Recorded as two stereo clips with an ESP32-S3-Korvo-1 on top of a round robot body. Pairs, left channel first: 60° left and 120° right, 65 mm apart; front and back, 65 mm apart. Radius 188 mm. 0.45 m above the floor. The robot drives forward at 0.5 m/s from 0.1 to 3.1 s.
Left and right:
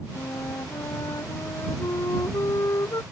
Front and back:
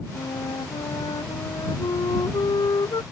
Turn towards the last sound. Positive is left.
turn(degrees=20)